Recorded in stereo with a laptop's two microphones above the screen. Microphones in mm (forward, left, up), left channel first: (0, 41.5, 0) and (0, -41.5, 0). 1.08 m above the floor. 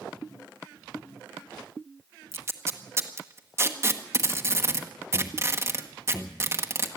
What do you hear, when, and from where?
2.3 s tape being pulled: 30° right (ahead or behind), 1.1 m